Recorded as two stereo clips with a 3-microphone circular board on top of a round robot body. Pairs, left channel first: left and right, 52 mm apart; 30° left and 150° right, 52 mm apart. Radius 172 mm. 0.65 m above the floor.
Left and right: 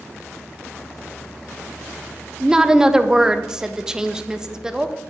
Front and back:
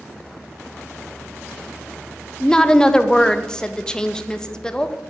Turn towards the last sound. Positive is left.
turn(degrees=-30)